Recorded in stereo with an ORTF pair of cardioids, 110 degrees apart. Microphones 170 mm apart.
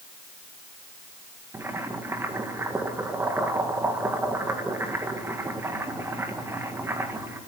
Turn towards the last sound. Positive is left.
turn(degrees=-15)